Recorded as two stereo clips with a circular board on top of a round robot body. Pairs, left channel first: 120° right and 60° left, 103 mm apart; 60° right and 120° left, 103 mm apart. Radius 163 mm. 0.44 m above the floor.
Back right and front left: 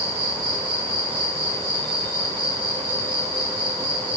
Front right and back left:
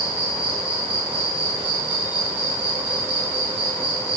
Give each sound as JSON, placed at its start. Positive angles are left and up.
{"t": 0.0, "sound": "an insect", "azimuth_deg": 40, "distance_m": 5.0}